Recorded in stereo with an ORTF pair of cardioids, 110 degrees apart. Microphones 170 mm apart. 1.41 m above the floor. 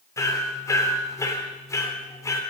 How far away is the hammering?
About 3.5 m.